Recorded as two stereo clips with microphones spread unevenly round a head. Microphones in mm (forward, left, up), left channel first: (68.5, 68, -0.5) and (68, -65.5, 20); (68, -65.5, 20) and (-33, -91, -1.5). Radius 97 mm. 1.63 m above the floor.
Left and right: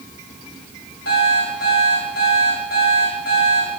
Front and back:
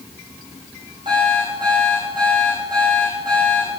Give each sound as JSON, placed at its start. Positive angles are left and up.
{"t": 1.1, "sound": "an alarm clock", "azimuth_deg": 125, "distance_m": 4.5}